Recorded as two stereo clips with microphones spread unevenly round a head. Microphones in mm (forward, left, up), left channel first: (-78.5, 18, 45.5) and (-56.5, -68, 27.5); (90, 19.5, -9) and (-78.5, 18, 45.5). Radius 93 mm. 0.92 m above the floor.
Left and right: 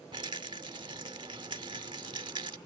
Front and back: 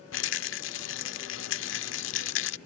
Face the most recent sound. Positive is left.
turn(degrees=-10)